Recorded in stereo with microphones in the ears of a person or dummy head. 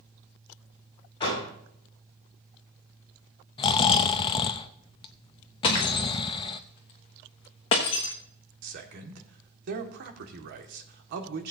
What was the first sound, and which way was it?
A door slam, 35° left (ahead or behind).